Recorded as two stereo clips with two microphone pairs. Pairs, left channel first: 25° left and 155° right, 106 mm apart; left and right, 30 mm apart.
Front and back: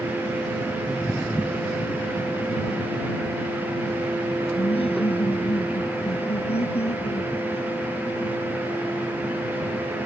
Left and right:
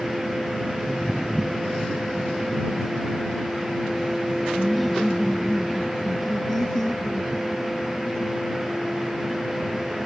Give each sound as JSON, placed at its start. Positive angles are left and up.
{"t": 4.5, "sound": "laughter", "azimuth_deg": 0}